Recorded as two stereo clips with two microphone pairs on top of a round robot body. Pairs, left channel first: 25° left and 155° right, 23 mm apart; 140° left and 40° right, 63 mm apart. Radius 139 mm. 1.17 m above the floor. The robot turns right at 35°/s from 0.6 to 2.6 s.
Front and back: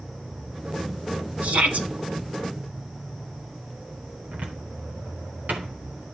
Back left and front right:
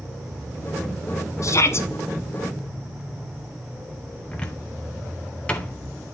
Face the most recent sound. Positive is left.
turn(degrees=-145)